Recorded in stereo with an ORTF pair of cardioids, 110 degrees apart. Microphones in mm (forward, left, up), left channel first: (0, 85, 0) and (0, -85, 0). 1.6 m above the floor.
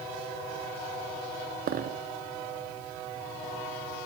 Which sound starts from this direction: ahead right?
A dropped coin, at 1.7 s.